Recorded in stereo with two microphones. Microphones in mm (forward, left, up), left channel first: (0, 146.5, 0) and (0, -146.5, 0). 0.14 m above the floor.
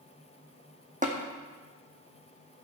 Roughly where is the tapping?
Right.